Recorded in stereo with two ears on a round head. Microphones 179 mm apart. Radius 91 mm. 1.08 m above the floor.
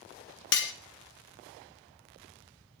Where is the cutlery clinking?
60° left (ahead or behind), 0.5 m.